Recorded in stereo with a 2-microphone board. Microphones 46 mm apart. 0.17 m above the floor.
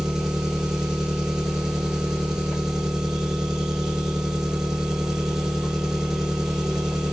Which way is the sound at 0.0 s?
10° right (ahead or behind).